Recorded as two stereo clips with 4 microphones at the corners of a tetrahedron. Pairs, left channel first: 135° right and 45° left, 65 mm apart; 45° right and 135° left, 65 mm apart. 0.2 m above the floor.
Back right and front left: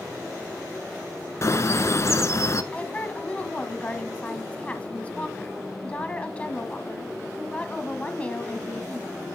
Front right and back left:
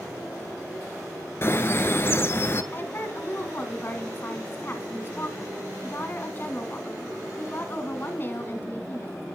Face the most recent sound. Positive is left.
turn(degrees=-75)